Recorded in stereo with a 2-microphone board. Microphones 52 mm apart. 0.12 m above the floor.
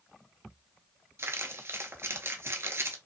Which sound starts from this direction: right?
Crumpling, at 1.2 s.